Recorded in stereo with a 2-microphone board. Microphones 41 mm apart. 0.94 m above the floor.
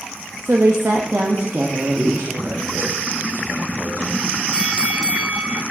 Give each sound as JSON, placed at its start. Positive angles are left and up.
{"t": 0.4, "sound": "a woman speaking", "side_deg": -70, "distance_m": 0.7}
{"t": 1.9, "sound": "a man speaking", "side_deg": -55, "distance_m": 1.6}
{"t": 4.5, "sound": "a bell", "side_deg": -25, "distance_m": 0.8}